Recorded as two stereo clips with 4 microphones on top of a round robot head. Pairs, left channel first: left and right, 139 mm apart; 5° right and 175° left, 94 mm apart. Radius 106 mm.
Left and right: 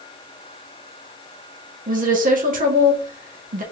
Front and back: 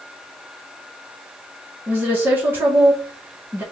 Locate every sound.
1.9 s a woman speaking: 110° right, 1.8 m